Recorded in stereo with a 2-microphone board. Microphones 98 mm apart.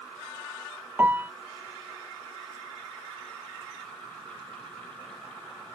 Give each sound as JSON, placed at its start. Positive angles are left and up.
{"t": 1.0, "sound": "a piano", "side_deg": -20}